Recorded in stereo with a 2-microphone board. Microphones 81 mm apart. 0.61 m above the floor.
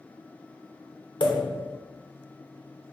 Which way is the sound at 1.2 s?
70° left (ahead or behind).